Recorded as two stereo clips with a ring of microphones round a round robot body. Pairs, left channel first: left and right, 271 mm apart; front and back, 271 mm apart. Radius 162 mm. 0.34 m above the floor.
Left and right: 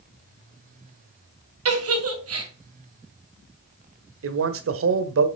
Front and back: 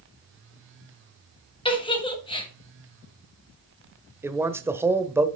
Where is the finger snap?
I don't hear a finger snap.